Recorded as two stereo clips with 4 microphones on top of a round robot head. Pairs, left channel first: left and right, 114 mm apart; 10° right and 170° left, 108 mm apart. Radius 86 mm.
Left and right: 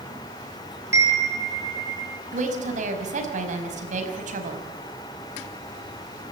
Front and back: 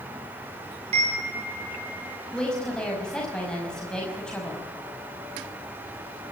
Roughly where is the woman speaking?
Right.